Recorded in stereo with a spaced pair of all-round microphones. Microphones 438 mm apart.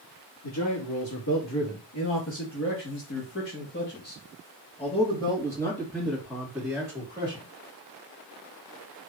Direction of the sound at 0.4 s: 60° left (ahead or behind).